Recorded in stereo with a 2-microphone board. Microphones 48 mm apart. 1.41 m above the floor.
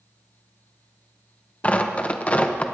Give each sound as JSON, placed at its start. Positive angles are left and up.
{"t": 1.6, "sound": "tearing paper", "side_deg": 30, "distance_m": 0.8}